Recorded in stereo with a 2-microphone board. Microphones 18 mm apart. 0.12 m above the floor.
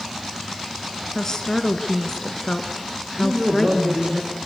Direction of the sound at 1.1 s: 30° left (ahead or behind).